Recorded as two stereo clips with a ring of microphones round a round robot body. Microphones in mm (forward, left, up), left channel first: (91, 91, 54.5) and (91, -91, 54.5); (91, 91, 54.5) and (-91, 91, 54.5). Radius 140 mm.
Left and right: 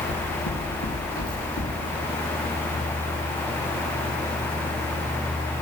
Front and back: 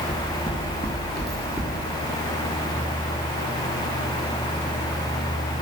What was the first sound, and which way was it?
Footsteps, 70° left.